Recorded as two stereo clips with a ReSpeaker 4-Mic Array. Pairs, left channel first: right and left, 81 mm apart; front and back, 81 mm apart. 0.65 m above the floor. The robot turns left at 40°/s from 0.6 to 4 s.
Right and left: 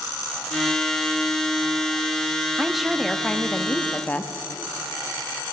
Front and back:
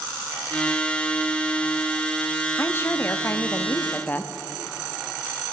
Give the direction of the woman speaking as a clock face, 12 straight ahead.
12 o'clock.